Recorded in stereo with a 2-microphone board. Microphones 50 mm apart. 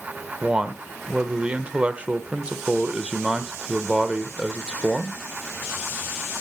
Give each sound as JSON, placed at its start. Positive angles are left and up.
{"t": 0.4, "sound": "a man speaking", "side_deg": -25, "distance_m": 0.9}